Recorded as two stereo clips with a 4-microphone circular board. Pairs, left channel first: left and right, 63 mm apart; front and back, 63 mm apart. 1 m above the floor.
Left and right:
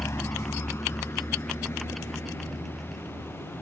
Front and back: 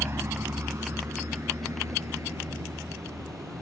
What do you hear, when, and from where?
0.0 s a vehicle: 135° left; by 3.6 s 140° left